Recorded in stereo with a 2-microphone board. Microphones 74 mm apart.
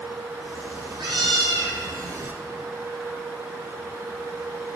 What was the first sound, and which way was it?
A cat meowing, 85° right.